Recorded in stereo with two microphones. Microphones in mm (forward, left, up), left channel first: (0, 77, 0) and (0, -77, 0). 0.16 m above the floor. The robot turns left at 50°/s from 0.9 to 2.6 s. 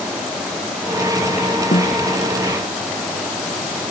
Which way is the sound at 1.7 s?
75° left (ahead or behind).